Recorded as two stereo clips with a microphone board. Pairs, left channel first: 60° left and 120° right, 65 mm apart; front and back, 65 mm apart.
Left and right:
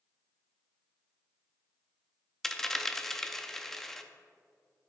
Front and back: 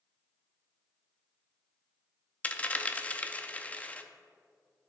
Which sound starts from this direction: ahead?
A dropped coin, at 2.4 s.